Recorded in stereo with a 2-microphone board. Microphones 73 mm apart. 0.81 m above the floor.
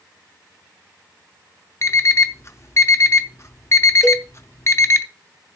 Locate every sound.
1.8 s an alarm clock: 40° left (ahead or behind), 0.7 m
4.0 s a cowbell: 5° right (ahead or behind), 1.0 m